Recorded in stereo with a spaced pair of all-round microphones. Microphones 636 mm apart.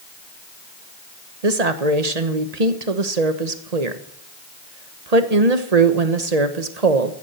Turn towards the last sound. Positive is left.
turn(degrees=-75)  # may be behind; listen again after turning